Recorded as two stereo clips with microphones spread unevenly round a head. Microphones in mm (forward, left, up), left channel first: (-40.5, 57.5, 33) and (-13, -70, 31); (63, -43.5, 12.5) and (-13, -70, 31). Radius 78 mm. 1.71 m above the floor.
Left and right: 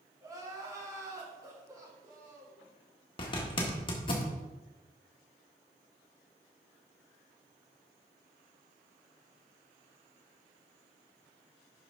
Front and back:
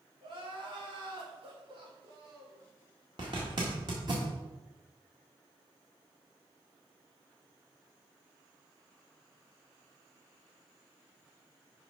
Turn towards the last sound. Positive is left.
turn(degrees=150)